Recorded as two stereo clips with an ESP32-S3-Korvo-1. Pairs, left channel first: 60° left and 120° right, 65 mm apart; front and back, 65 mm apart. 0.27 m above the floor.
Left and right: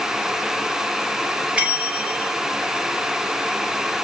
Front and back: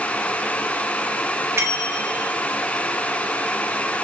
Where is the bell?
175° left, 0.8 m.